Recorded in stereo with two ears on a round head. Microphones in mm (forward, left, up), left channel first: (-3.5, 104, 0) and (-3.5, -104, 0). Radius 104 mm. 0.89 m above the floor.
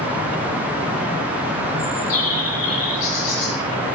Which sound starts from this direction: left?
A bird, at 1.8 s.